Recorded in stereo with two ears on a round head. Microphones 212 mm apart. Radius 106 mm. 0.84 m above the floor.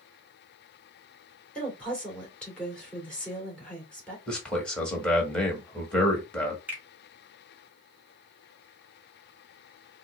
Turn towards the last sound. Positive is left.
turn(degrees=-5)  # may be behind; listen again after turning